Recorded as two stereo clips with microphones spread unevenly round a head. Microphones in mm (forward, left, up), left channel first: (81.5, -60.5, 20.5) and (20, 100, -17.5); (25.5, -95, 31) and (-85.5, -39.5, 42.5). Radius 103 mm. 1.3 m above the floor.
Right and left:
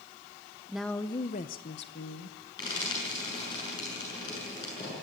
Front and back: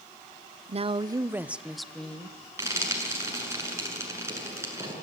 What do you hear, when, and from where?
0.7 s a woman speaking: 175° right, 0.8 m; by 2.4 s 105° right, 1.7 m
2.6 s frying: 140° right, 7.5 m